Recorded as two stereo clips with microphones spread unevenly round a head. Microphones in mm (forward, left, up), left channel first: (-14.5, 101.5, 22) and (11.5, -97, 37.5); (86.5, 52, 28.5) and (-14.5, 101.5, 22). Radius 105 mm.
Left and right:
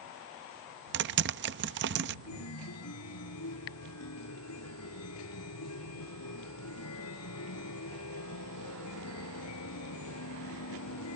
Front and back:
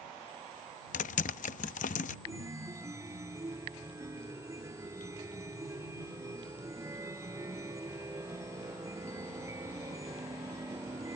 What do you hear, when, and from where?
0.9 s typing on a keyboard: 45° right
2.3 s a chime: 90° left